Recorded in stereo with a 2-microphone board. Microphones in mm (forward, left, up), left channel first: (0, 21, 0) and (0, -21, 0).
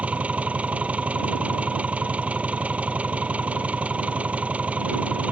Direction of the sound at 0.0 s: 35° right (ahead or behind).